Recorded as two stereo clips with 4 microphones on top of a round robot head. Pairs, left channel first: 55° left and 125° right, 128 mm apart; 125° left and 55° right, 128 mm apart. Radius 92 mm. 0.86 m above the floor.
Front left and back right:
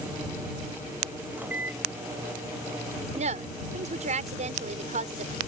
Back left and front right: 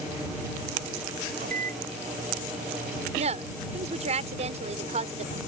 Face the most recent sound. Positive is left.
turn(degrees=-90)